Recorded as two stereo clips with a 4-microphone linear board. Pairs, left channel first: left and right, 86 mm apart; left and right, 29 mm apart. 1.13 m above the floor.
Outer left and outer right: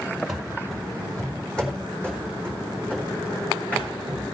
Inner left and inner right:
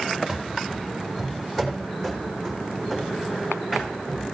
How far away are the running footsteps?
About 1.7 m.